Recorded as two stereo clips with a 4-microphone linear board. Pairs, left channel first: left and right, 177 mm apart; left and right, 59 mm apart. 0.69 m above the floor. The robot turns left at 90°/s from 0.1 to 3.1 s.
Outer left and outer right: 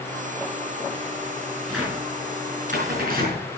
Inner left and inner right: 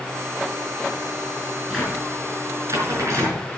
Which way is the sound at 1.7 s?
5° left (ahead or behind).